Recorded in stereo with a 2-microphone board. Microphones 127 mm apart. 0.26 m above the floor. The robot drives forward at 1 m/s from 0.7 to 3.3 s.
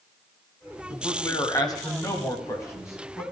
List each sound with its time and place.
0.9 s a man speaking: 30° left (ahead or behind), 1.7 m; by 3.2 s 20° left (ahead or behind), 2.5 m